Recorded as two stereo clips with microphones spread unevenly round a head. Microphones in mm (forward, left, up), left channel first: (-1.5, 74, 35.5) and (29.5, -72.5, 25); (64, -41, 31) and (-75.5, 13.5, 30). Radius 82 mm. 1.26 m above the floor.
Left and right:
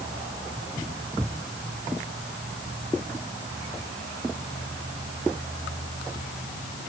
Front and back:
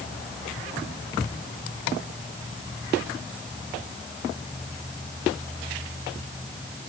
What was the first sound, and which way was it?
Only background noise.